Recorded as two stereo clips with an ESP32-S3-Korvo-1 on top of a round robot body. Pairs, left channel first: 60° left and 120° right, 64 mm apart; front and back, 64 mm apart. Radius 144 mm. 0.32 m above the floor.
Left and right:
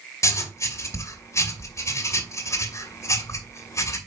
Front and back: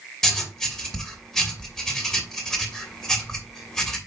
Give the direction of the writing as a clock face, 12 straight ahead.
9 o'clock.